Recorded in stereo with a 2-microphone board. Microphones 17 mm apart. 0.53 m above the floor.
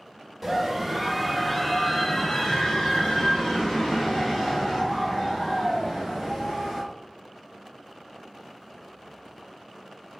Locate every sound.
0.4 s a scream: 10° right (ahead or behind), 1.1 m; by 6.8 s 40° left (ahead or behind), 2.5 m